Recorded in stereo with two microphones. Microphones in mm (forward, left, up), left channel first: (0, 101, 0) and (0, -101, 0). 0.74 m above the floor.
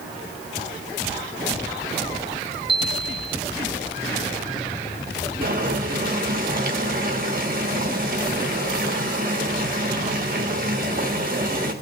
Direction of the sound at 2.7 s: 25° right (ahead or behind).